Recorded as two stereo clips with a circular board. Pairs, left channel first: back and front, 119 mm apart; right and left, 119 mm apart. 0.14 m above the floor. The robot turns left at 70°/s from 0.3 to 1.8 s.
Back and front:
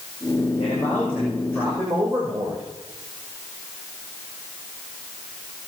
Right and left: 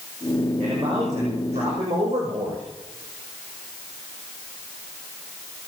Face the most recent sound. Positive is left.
turn(degrees=50)